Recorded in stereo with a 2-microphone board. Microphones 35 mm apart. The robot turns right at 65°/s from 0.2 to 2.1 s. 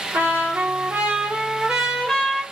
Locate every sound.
0.1 s a trumpet: 110° right, 1.0 m; by 2.4 s 15° left, 1.0 m